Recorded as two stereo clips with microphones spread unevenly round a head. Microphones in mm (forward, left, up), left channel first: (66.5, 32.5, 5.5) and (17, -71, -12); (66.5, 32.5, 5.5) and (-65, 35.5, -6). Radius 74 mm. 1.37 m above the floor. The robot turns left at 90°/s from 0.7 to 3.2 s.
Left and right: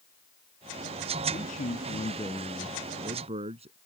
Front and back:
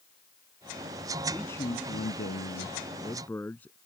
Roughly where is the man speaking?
Left.